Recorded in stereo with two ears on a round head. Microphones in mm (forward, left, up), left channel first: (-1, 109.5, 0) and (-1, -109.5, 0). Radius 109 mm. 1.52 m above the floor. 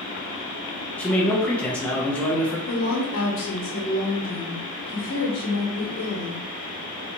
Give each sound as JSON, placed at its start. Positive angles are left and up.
{"t": 1.0, "sound": "a man speaking", "side_deg": 5, "distance_m": 0.9}
{"t": 2.7, "sound": "a woman speaking", "side_deg": 60, "distance_m": 1.3}